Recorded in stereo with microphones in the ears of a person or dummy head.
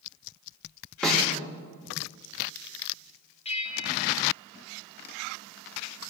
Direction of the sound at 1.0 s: Centre (ahead or behind).